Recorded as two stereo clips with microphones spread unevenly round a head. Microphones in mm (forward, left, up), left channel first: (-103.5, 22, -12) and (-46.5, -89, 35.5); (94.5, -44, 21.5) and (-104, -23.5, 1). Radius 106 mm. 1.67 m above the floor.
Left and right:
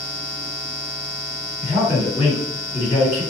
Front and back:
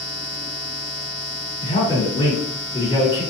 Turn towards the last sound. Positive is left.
turn(degrees=60)